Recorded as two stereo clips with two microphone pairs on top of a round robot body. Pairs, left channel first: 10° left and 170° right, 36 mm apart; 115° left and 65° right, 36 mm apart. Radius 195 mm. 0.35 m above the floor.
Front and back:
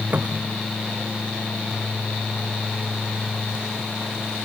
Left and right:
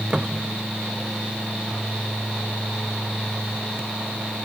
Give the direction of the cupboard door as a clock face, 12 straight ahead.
4 o'clock.